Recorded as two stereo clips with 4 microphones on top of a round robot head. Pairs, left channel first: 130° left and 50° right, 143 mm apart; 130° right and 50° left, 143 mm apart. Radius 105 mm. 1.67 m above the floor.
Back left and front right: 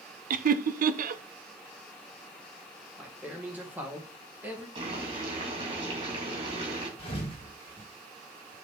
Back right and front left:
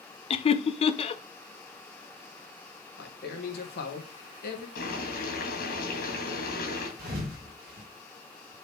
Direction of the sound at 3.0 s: 130° right.